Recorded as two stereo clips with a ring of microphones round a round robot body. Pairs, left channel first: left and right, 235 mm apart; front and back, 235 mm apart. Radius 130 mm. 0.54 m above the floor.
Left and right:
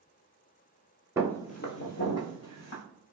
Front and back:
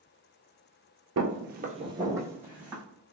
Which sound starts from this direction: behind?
Footsteps, at 1.2 s.